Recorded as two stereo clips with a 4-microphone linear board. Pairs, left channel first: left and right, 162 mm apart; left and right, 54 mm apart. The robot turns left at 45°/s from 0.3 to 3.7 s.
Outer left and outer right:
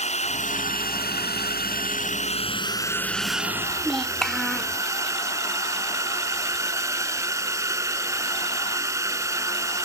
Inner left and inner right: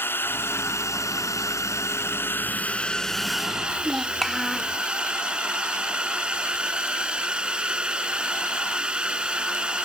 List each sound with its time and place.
0.0 s a drone: 135° left; by 9.8 s 20° right
3.7 s a child speaking: 5° left (ahead or behind)